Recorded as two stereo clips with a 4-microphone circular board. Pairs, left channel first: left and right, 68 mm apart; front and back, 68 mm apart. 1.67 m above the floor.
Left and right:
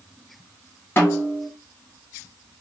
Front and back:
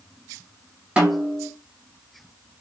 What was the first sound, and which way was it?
A snare drum, 115° left.